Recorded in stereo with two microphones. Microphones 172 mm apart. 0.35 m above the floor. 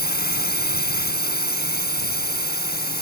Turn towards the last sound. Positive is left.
turn(degrees=70)  # may be behind; listen again after turning